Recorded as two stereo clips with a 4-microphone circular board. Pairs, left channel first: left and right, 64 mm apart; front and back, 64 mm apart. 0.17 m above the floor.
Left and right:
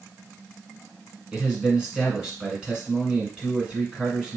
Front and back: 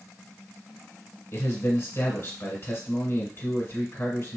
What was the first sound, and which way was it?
A man speaking, 20° right.